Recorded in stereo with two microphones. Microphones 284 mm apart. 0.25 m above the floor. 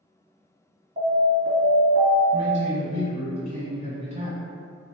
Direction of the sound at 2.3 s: 25° right (ahead or behind).